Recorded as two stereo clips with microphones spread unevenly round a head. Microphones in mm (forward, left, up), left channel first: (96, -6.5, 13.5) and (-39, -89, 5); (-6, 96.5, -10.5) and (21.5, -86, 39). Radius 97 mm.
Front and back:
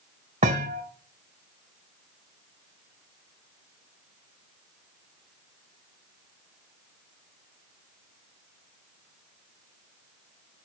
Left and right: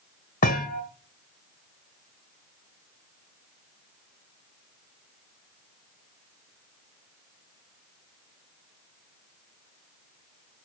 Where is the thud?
155° left, 1.5 m.